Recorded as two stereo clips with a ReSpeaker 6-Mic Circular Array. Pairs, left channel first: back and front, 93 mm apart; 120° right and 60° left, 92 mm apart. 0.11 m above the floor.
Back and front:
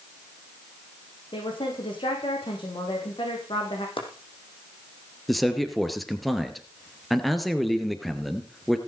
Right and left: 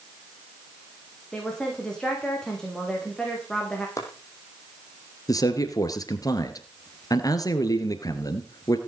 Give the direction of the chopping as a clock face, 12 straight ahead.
6 o'clock.